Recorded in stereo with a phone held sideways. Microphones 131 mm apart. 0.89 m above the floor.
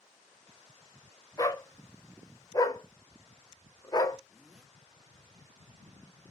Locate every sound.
1.4 s a dog barking: 30° left (ahead or behind), 0.9 m
4.3 s a zipper: 5° right (ahead or behind), 1.8 m